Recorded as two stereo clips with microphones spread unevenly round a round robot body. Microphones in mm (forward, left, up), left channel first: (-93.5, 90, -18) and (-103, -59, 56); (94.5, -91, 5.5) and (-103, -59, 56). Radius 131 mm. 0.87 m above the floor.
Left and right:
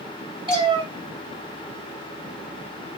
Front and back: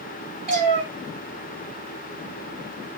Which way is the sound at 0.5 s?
150° right.